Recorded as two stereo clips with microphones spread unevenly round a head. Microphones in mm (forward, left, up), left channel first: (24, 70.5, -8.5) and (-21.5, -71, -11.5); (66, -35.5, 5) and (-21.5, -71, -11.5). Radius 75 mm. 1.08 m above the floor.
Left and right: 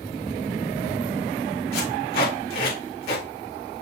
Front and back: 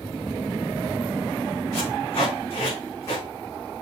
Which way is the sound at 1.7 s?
95° left.